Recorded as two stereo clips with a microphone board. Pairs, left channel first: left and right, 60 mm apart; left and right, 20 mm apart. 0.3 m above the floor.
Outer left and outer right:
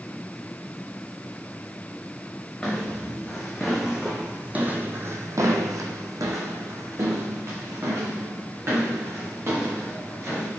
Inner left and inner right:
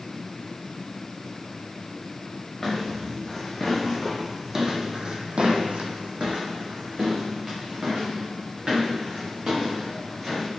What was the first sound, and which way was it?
Footsteps, 10° left (ahead or behind).